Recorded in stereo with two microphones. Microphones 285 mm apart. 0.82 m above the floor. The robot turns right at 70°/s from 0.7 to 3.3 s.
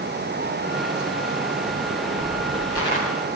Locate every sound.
1.7 s footsteps: 65° right (ahead or behind), 9.5 m; by 3.0 s 35° left (ahead or behind), 8.5 m